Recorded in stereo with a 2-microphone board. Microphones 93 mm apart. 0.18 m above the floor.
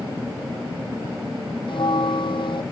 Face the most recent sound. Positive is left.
turn(degrees=65)  # may be behind; listen again after turning